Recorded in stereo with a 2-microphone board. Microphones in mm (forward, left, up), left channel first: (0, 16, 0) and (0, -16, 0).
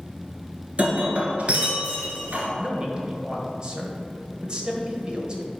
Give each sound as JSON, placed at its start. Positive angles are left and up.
{"t": 0.8, "sound": "breaking glass", "side_deg": -50, "distance_m": 1.7}
{"t": 2.6, "sound": "a man speaking", "side_deg": -30, "distance_m": 1.3}